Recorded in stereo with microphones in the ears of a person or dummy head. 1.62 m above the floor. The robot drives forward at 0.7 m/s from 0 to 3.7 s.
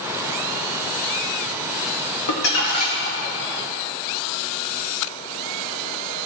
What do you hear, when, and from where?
2.3 s crumpling: 60° left (ahead or behind), 1.7 m; by 3.2 s 50° left (ahead or behind), 2.0 m